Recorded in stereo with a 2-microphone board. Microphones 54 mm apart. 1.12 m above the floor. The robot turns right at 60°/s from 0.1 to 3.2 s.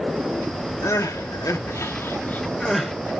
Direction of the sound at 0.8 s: 60° left (ahead or behind).